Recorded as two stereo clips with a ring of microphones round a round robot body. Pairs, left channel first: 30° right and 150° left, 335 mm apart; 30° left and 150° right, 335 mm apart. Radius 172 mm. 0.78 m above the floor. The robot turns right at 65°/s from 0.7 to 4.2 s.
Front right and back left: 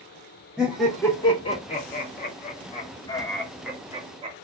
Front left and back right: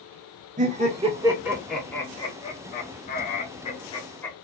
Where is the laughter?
125° right, 0.5 m; by 4.3 s 105° left, 0.5 m.